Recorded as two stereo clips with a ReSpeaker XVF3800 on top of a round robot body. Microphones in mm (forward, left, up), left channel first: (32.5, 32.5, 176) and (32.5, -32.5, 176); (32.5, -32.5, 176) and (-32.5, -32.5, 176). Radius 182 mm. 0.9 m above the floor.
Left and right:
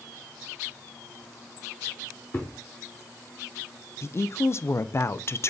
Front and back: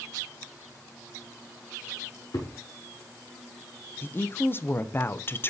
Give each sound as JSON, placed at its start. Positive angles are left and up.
{"t": 2.3, "sound": "a thud", "azimuth_deg": 35, "distance_m": 0.6}
{"t": 4.0, "sound": "a woman speaking", "azimuth_deg": 50, "distance_m": 0.5}